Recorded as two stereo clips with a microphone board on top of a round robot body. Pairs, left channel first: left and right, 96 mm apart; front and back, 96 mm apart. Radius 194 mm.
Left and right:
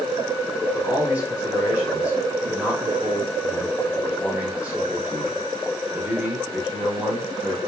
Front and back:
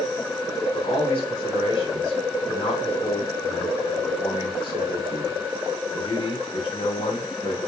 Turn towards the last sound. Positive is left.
turn(degrees=-15)